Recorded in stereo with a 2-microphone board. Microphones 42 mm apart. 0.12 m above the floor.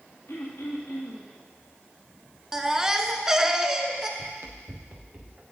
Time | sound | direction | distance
0.3 | throat clearing | 60° left (ahead or behind) | 2.5 m
2.5 | a baby crying | 15° right (ahead or behind) | 0.5 m
4.2 | running footsteps | 80° right | 0.9 m